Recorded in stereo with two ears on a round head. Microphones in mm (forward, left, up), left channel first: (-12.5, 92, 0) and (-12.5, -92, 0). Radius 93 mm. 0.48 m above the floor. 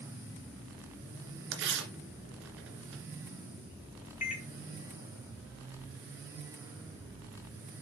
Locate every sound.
1.5 s tearing paper: 60° right (ahead or behind), 2 m
4.2 s a microwave: 40° left (ahead or behind), 1.7 m